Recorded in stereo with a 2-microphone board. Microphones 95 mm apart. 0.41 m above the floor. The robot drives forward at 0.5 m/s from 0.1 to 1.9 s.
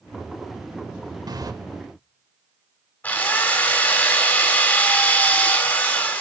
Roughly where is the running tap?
Right.